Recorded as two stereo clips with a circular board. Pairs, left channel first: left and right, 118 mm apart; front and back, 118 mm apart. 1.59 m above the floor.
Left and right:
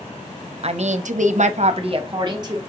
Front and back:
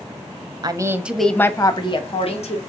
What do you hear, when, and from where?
0.6 s a woman speaking: 125° right, 0.6 m; by 2.6 s 30° right, 1.0 m